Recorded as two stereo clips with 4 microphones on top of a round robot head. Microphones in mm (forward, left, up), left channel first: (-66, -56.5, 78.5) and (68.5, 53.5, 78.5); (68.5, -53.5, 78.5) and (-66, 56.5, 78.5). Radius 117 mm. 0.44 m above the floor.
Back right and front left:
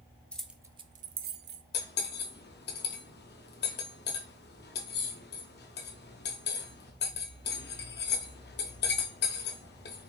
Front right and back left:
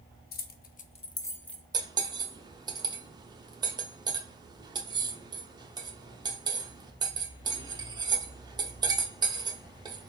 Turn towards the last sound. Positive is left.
turn(degrees=-155)